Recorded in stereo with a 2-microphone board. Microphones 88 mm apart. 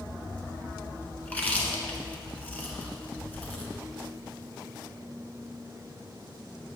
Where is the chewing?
15° left (ahead or behind), 1.3 m.